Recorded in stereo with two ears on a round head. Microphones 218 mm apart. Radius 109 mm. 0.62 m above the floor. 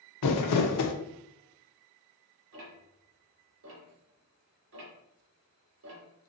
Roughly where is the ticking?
Right.